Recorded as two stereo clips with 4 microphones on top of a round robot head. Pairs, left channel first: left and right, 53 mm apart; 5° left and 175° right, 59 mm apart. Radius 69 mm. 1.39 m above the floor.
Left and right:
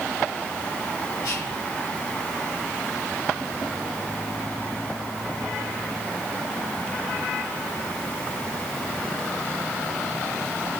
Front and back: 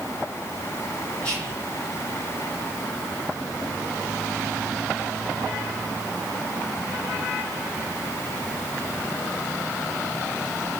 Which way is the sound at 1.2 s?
80° left.